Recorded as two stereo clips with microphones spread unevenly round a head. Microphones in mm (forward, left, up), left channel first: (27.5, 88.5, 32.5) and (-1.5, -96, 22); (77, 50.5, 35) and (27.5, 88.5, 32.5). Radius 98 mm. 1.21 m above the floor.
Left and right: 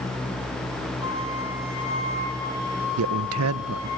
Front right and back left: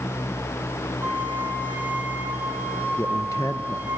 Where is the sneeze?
I don't hear a sneeze.